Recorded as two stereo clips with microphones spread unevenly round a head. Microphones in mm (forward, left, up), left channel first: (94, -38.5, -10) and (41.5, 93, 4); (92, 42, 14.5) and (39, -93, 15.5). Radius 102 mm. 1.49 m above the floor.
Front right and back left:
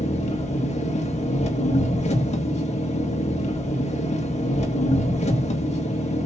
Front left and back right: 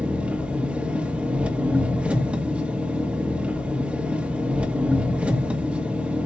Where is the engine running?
30° right, 1.9 m.